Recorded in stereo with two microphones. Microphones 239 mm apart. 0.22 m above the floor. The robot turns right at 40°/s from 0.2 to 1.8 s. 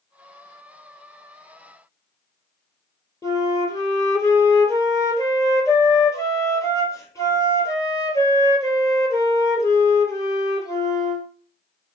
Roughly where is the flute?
Centre.